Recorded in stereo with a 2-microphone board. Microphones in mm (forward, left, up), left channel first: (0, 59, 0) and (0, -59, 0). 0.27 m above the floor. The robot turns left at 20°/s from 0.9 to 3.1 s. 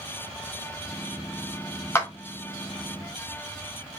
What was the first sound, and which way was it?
A clap, 20° left (ahead or behind).